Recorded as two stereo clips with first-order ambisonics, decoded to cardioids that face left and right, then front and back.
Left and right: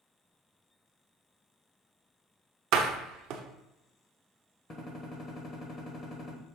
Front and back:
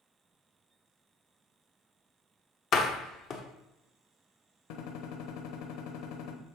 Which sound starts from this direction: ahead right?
A door slam, at 2.7 s.